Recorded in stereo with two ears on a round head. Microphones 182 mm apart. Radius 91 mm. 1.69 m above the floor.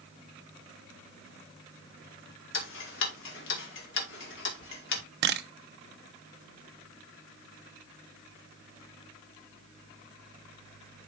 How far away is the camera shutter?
About 0.8 m.